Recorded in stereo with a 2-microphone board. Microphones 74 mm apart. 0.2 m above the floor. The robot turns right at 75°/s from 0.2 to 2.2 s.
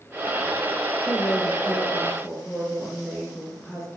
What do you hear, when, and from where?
1.1 s a woman speaking: 90° left, 2 m; by 3.9 s straight behind, 2 m